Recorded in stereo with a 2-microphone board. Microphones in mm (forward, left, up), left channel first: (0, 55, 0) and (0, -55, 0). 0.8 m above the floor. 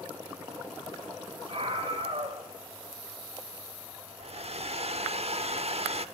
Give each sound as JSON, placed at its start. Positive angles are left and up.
{"t": 1.5, "sound": "a scream", "side_deg": -55, "distance_m": 3.5}
{"t": 4.2, "sound": "a hair dryer", "side_deg": -65, "distance_m": 1.0}